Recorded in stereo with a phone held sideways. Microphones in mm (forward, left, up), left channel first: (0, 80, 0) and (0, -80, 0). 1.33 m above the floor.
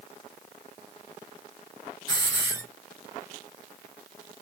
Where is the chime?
No chime in this recording.